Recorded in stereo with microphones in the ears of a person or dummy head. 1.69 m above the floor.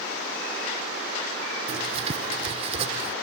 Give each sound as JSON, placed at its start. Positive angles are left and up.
{"t": 1.7, "sound": "writing", "side_deg": -35}